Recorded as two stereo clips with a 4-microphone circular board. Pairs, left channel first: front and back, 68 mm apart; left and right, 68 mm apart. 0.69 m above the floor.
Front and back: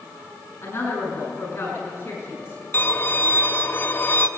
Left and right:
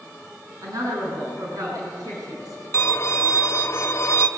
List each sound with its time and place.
0.6 s a woman speaking: 60° right, 7 m
2.7 s a violin: 50° left, 1.7 m